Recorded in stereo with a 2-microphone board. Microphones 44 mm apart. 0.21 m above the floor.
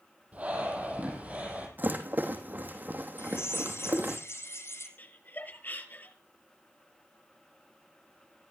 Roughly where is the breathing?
Right.